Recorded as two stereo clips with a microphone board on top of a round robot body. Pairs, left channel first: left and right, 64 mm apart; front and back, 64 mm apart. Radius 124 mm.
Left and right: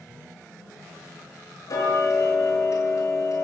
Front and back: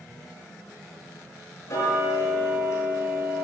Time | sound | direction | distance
1.7 | ticking | 50° left | 6.5 m